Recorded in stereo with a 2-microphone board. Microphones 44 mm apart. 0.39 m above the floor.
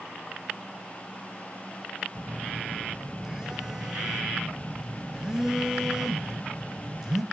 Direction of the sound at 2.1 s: 15° right (ahead or behind).